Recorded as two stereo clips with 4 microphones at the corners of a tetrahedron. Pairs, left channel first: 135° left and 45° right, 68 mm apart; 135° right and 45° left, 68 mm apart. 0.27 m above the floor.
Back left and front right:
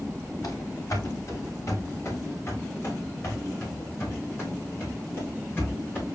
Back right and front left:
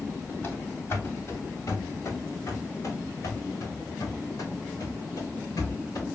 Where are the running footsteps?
170° left, 3 m; by 6.0 s 160° right, 8 m.